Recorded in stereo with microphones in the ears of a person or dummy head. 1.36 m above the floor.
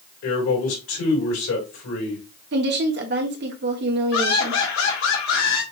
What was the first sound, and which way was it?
A man speaking, 85° left.